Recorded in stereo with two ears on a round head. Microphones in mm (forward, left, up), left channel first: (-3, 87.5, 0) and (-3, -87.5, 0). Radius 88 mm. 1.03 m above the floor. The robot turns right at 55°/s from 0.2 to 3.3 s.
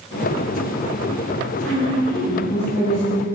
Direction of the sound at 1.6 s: 5° left.